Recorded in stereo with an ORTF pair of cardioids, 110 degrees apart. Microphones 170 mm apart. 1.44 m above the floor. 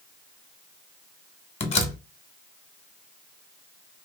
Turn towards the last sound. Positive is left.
turn(degrees=35)